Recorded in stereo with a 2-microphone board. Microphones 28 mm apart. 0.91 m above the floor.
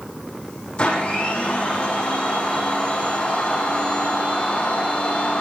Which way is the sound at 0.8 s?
40° left (ahead or behind).